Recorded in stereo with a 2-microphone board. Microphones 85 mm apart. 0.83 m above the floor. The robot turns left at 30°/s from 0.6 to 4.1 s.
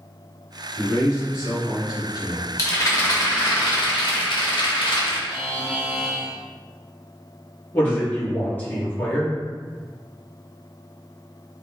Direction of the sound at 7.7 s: 25° left (ahead or behind).